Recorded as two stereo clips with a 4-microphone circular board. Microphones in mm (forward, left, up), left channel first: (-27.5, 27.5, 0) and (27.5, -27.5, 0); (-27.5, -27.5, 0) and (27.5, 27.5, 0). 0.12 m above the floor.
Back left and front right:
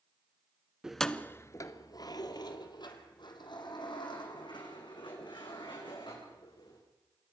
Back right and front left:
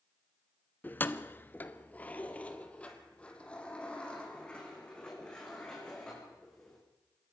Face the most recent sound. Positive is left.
turn(degrees=145)